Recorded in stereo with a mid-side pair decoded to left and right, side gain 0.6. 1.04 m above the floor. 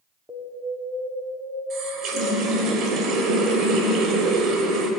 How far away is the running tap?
About 3 m.